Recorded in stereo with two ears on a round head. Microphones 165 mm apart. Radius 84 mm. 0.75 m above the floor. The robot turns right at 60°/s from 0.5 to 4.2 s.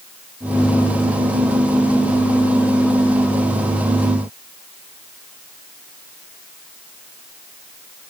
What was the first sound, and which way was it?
Only background noise.